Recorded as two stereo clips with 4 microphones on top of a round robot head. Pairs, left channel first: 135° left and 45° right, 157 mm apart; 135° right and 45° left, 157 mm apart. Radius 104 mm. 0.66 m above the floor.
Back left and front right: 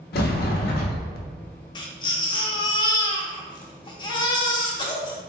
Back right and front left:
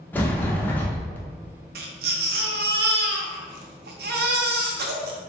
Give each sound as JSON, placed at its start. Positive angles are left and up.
{"t": 0.1, "sound": "a sliding door", "azimuth_deg": 150, "distance_m": 0.6}
{"t": 1.8, "sound": "a baby crying", "azimuth_deg": 70, "distance_m": 0.6}